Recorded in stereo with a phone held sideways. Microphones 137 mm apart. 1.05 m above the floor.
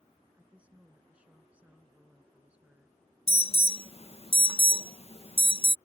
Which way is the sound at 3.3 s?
45° left (ahead or behind).